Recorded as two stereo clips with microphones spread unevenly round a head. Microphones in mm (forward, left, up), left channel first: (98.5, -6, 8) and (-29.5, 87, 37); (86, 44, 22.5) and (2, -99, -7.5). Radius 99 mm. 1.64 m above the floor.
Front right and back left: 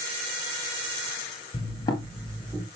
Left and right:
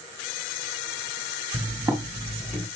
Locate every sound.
1.5 s footsteps: 60° right, 1.7 m; by 2.6 s 110° left, 1.7 m